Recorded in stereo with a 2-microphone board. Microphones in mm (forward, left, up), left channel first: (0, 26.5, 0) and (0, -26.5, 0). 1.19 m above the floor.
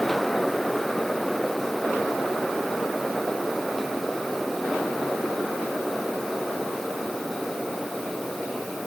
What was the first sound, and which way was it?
Only background noise.